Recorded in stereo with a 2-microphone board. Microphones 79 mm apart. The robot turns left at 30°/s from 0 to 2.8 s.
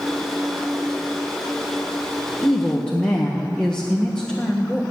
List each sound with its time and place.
2.4 s a woman speaking: centre (ahead or behind), 1.4 m; by 4.8 s 10° left (ahead or behind), 1.4 m